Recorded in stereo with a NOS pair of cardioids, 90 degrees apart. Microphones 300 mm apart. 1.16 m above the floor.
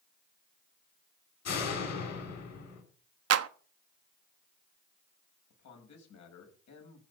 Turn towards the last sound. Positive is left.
turn(degrees=65)